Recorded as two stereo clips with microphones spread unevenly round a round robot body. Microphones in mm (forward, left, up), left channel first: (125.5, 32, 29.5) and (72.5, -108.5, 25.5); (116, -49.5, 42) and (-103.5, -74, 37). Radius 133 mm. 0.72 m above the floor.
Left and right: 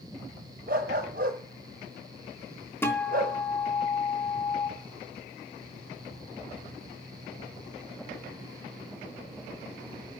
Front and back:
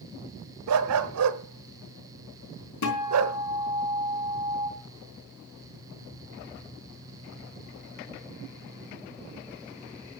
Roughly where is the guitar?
Ahead.